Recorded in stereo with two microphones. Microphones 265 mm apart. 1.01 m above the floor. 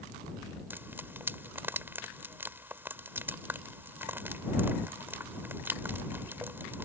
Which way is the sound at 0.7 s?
10° right (ahead or behind).